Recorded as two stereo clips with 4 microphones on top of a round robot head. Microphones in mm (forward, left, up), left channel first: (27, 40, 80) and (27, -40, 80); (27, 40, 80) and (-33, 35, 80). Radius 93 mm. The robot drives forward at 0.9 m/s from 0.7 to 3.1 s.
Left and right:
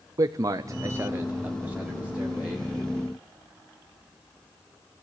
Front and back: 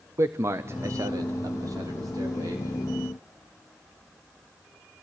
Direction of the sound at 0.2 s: 135° right.